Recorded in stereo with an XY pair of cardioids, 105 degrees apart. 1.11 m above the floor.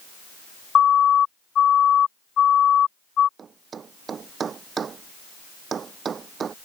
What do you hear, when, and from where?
0.8 s a siren: 55° left
3.4 s a thud: 45° right